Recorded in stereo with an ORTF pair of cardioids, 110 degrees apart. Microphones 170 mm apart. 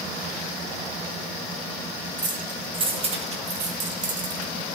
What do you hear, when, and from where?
2.2 s keys jangling: 25° right, 2.5 m; by 4.5 s 60° right, 2.0 m